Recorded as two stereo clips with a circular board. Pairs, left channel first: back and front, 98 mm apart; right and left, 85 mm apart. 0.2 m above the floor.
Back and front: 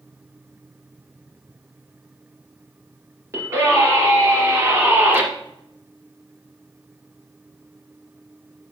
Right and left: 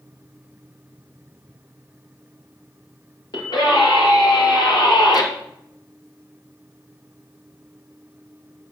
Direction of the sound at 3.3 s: 60° right.